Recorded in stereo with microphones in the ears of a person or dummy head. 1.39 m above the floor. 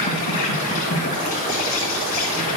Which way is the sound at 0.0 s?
45° left (ahead or behind).